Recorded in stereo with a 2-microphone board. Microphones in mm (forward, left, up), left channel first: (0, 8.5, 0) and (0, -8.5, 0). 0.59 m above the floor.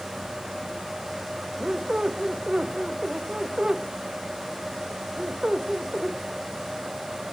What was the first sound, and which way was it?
A squeak, 60° right (ahead or behind).